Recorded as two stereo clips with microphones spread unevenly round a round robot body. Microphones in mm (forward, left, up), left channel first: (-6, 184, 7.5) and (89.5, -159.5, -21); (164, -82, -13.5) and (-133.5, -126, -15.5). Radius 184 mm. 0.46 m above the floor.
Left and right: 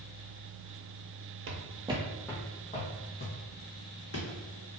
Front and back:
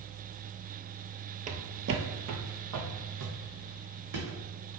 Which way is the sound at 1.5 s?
115° right.